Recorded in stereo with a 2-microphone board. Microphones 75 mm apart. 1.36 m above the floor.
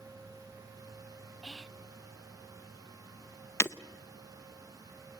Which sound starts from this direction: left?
Breaking glass, at 3.6 s.